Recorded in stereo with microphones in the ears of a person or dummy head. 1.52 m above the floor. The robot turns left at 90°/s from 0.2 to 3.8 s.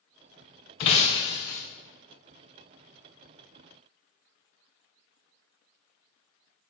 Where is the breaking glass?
25° left (ahead or behind), 0.6 m; by 1.6 s 10° left (ahead or behind), 0.6 m.